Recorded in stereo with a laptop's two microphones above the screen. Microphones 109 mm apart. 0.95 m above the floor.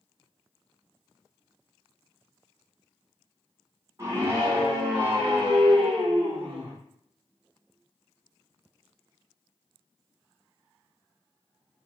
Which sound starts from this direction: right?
A scream, at 4.0 s.